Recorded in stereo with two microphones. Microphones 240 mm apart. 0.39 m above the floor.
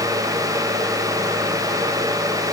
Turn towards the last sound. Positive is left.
No sound to turn to.